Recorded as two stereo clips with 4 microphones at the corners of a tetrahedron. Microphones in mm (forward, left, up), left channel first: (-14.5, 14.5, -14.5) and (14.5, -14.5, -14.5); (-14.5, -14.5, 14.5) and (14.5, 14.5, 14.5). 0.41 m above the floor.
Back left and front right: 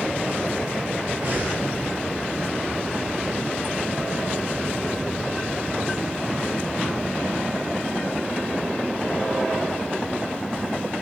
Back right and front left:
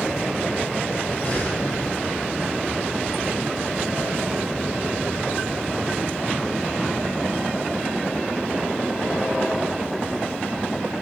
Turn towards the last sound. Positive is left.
turn(degrees=-90)